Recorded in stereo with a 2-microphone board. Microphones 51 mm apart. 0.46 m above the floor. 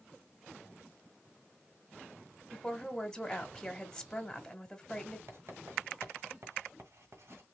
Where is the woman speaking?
10° left (ahead or behind), 1.4 m.